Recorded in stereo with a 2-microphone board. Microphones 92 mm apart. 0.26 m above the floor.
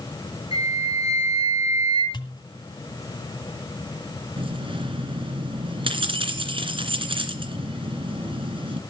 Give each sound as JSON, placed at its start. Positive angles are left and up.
{"t": 0.5, "sound": "a flute", "side_deg": -50, "distance_m": 5.5}
{"t": 2.1, "sound": "a pop", "side_deg": 55, "distance_m": 1.6}
{"t": 4.4, "sound": "keys jangling", "side_deg": -70, "distance_m": 2.5}